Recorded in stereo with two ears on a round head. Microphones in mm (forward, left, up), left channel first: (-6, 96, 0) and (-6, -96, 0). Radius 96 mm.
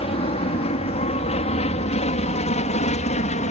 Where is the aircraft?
30° left (ahead or behind); by 3.5 s 35° left (ahead or behind).